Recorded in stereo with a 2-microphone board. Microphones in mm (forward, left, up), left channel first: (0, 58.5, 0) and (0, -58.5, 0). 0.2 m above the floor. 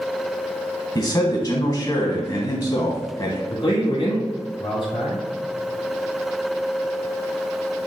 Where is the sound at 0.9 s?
35° left (ahead or behind), 1.2 m.